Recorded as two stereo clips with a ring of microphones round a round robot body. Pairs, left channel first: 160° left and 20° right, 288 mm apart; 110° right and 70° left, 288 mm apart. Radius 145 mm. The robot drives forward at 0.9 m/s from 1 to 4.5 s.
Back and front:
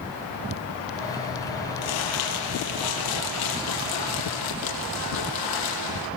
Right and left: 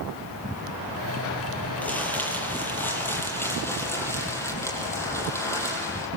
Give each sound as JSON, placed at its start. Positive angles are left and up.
{"t": 1.8, "sound": "crumpling", "azimuth_deg": 165, "distance_m": 7.5}